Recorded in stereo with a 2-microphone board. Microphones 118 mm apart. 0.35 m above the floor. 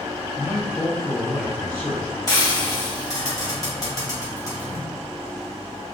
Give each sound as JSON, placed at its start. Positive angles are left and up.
{"t": 0.3, "sound": "a man speaking", "side_deg": -25, "distance_m": 1.0}
{"t": 2.3, "sound": "frying", "side_deg": 35, "distance_m": 1.5}